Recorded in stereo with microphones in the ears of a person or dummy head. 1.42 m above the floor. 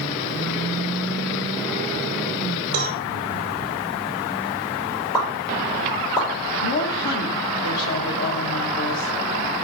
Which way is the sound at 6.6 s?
65° left (ahead or behind).